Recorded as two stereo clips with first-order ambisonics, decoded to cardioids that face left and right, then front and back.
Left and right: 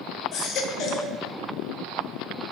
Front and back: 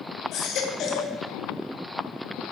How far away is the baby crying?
About 0.8 m.